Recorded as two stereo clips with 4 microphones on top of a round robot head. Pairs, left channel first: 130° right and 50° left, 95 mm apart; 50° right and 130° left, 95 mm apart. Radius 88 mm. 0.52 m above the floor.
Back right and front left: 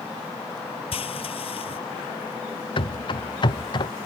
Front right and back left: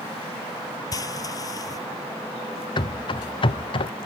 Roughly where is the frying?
Right.